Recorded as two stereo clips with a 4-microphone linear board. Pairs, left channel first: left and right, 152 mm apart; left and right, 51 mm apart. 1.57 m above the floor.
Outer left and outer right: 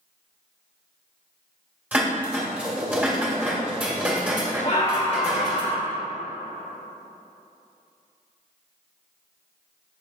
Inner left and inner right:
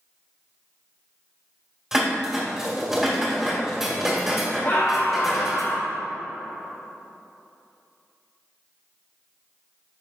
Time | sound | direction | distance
1.9 | dishes clattering | 10° right (ahead or behind) | 2 m
4.6 | a scream | 45° left (ahead or behind) | 2 m